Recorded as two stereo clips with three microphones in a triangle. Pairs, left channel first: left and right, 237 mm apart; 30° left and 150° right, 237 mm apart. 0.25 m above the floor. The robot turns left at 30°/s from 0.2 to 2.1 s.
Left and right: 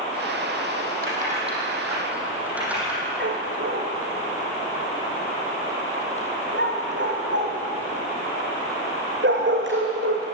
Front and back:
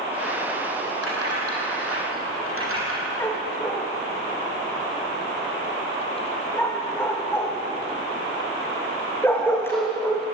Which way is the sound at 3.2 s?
50° right.